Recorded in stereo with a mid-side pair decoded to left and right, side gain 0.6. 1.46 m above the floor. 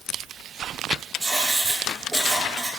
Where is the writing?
20° right, 2.5 m.